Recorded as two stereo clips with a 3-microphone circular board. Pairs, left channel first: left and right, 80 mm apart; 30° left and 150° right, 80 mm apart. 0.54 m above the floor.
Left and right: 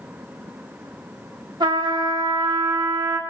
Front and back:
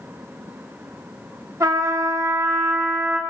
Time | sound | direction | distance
1.6 | a trumpet | 105° right | 0.8 m